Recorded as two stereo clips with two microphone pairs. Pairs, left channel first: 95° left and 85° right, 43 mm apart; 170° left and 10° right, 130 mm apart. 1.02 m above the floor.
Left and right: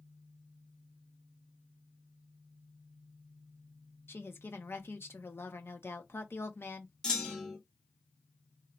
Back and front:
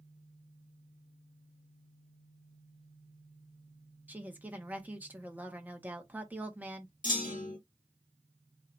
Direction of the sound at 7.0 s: 170° left.